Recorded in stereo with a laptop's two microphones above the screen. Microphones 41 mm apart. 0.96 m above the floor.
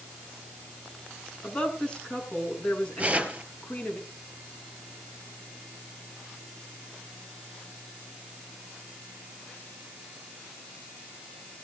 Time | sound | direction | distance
1.4 | a woman speaking | 25° left (ahead or behind) | 8 m
3.0 | tearing paper | 30° right (ahead or behind) | 3.5 m